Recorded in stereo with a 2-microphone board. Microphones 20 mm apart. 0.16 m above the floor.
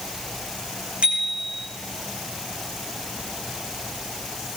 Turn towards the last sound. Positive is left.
turn(degrees=-70)  # may be behind; listen again after turning